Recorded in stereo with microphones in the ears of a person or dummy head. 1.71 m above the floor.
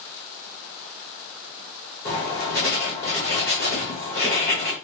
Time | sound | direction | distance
2.0 | writing | 15° left (ahead or behind) | 1.2 m